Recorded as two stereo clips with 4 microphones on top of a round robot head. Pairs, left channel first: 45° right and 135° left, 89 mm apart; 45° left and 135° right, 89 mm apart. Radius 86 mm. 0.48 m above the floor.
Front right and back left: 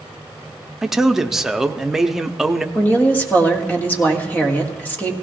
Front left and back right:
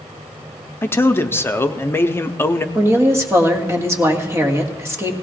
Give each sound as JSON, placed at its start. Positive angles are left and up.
{"t": 0.8, "sound": "a man speaking", "azimuth_deg": 55, "distance_m": 0.8}
{"t": 2.8, "sound": "a woman speaking", "azimuth_deg": -100, "distance_m": 1.5}